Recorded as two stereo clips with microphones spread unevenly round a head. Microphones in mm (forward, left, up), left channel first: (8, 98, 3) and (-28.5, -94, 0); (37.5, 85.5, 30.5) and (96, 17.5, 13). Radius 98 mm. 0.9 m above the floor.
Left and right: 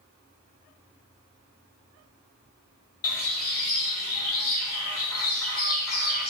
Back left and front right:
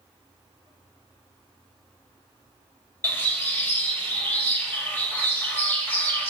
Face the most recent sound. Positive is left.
turn(degrees=65)